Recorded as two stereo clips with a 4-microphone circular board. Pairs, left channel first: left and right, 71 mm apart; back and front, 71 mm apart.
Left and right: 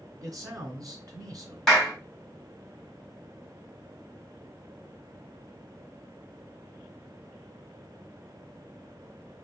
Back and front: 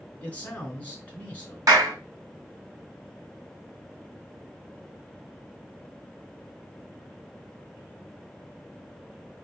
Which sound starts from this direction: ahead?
A clap, at 1.7 s.